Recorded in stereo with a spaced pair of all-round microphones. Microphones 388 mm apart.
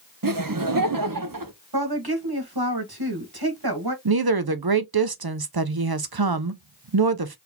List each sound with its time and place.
0.2 s laughter: 55° right (ahead or behind), 0.8 m
1.7 s a woman speaking: 70° right (ahead or behind), 1.6 m
4.0 s a woman speaking: 70° right (ahead or behind), 0.7 m